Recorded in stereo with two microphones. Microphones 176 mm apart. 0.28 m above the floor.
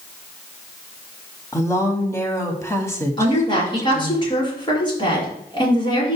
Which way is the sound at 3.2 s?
30° left (ahead or behind).